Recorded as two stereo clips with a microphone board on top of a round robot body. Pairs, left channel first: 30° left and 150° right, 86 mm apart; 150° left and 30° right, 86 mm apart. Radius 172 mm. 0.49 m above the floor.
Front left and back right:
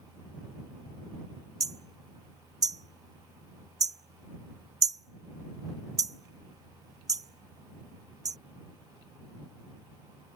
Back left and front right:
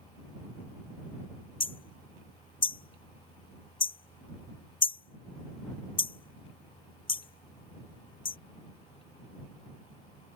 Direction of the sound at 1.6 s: 165° left.